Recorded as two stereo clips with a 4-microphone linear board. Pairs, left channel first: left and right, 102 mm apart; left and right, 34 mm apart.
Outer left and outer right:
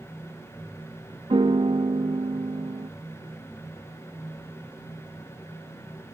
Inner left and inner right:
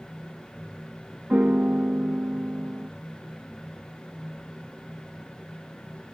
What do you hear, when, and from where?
1.3 s a piano: 55° right (ahead or behind)